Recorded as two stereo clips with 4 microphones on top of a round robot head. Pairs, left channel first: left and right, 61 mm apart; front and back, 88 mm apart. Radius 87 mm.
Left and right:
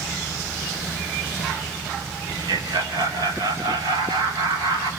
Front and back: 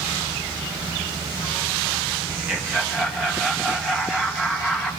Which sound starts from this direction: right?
Laughter, at 2.3 s.